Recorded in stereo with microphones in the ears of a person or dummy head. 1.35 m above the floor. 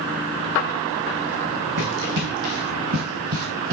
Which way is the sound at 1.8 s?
60° right (ahead or behind).